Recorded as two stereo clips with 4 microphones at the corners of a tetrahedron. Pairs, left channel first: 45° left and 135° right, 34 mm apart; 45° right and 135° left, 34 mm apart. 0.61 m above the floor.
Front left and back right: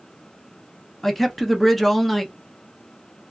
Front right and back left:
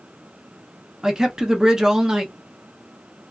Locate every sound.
1.0 s a man speaking: 125° left, 0.6 m